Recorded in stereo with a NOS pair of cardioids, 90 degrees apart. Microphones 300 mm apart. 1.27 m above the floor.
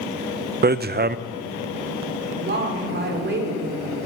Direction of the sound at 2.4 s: 35° right.